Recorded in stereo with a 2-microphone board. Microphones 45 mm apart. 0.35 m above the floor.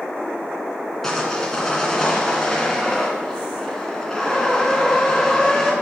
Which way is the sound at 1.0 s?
10° left (ahead or behind).